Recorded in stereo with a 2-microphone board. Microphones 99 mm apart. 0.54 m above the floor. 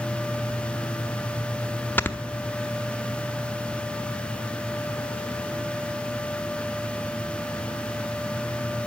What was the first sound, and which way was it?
Snoring, 20° left (ahead or behind).